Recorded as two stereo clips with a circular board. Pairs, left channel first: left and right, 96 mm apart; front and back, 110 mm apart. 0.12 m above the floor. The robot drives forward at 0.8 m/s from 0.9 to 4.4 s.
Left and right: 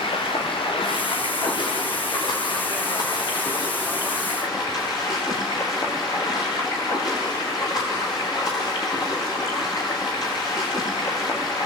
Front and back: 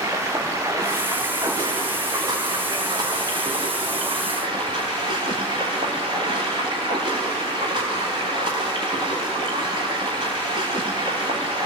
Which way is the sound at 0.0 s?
115° left.